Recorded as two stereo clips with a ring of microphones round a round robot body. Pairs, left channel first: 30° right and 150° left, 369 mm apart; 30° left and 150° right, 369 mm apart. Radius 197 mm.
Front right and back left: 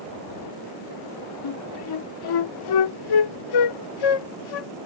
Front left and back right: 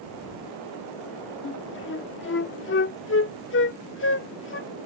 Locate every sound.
1.4 s a flute: 25° right